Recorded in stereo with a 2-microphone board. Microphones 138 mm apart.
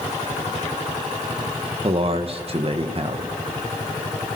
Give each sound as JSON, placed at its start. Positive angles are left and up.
{"t": 1.8, "sound": "a man speaking", "side_deg": -45, "distance_m": 2.0}